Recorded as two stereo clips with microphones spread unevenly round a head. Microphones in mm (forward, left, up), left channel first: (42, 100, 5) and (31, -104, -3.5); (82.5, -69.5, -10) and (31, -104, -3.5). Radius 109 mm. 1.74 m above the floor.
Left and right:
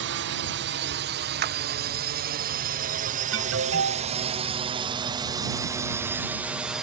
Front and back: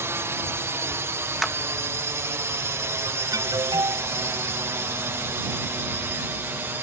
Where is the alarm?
130° right.